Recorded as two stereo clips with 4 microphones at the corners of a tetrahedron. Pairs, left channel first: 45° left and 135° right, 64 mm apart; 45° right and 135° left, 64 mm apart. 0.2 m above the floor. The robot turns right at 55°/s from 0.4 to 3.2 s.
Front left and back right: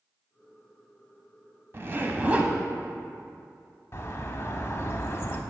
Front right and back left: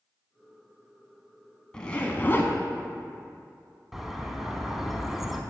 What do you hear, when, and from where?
1.7 s a zipper: 115° right, 0.6 m; by 2.5 s 70° right, 0.6 m
3.9 s a bird: 50° left, 0.6 m